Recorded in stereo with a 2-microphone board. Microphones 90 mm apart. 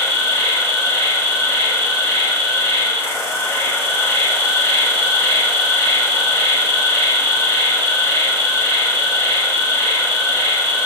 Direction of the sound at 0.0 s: 30° left (ahead or behind).